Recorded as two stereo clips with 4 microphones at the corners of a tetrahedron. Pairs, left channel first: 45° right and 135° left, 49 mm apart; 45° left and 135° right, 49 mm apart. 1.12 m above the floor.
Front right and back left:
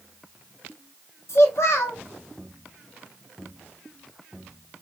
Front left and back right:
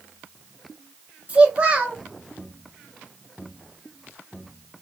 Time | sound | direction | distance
1.3 | a child speaking | 70° right | 0.8 m